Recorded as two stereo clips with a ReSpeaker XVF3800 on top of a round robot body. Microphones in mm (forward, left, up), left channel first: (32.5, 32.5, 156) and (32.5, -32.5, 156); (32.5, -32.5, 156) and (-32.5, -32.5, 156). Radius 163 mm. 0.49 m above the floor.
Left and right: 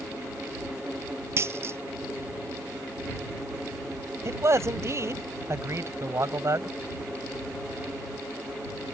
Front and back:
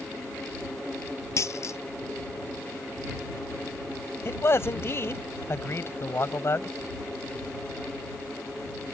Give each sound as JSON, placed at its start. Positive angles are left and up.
{"t": 1.4, "sound": "a dropped coin", "azimuth_deg": -40}
{"t": 4.2, "sound": "a man speaking", "azimuth_deg": -50}